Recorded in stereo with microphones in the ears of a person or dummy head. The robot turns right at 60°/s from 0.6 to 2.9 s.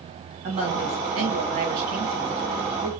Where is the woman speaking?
130° right, 1.9 m; by 2.9 s 10° left, 1.9 m.